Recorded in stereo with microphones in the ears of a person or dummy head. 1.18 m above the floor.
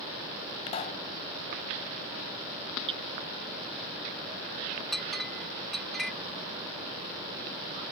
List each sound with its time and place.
0.7 s a pop: 35° left (ahead or behind)
2.9 s hammering: 30° right (ahead or behind)
4.9 s a clink: centre (ahead or behind)